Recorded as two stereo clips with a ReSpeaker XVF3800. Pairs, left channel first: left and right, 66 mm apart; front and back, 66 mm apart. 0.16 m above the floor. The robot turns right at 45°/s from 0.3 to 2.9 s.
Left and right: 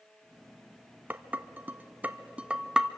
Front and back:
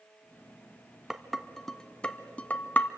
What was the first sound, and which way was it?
Dishes clattering, 100° right.